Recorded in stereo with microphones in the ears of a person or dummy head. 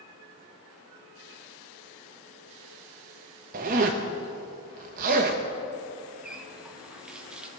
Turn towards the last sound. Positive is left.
turn(degrees=-5)  # may be behind; listen again after turning